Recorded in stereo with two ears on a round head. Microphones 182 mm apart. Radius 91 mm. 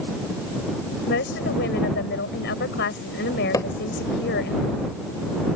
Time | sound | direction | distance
1.1 | a woman speaking | 55° left (ahead or behind) | ?
3.5 | hammering | 15° left (ahead or behind) | ?